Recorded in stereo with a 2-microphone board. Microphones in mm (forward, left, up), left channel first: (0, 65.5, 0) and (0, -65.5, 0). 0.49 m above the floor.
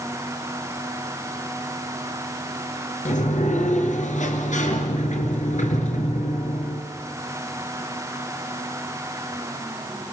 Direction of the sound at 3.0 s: 80° left.